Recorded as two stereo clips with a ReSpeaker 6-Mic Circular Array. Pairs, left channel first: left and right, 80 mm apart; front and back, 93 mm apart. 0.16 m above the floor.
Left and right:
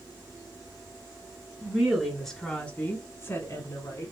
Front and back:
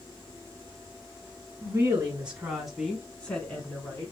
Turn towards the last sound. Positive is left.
turn(degrees=65)